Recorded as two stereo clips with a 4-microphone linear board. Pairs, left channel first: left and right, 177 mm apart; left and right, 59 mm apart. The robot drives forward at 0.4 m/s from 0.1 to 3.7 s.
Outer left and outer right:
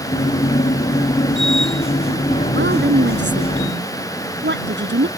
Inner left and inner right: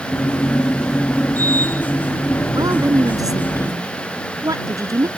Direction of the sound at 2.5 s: 85° right.